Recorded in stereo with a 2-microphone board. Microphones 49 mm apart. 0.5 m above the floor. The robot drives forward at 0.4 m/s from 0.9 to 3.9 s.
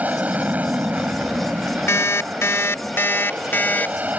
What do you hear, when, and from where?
0.0 s an aircraft: 30° right (ahead or behind)
1.9 s an alarm clock: 75° left (ahead or behind); by 4.1 s 40° left (ahead or behind)